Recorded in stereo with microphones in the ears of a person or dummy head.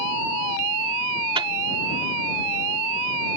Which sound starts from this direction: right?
A microwave, at 1.4 s.